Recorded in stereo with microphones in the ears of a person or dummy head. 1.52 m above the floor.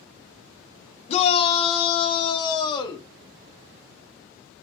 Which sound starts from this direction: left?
A shout, at 1.1 s.